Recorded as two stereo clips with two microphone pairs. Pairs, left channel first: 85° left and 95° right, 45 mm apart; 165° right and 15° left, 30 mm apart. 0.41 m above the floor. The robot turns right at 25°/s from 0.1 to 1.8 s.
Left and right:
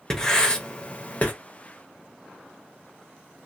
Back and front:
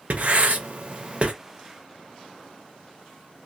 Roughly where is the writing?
Ahead.